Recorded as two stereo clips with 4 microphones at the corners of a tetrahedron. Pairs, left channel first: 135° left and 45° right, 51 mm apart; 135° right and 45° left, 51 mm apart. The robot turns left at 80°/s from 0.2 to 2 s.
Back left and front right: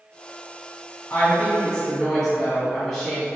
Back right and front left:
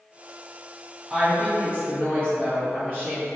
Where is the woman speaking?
125° left, 1.4 m; by 3.3 s 50° left, 1.4 m.